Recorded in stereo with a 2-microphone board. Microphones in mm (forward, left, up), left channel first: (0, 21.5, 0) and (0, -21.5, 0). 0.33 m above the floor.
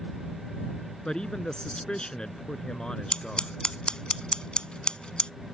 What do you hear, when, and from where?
1.1 s a man speaking: 20° left (ahead or behind)
3.1 s scissors: 20° left (ahead or behind)